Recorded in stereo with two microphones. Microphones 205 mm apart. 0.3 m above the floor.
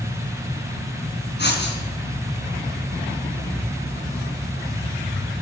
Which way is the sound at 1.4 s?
55° left (ahead or behind).